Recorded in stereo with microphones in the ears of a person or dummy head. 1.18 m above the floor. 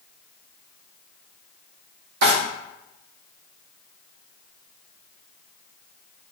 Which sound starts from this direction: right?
A drawer, at 2.2 s.